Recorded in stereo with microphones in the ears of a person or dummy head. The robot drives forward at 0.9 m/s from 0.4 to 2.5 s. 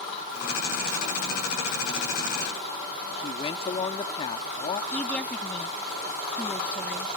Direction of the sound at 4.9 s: 5° left (ahead or behind).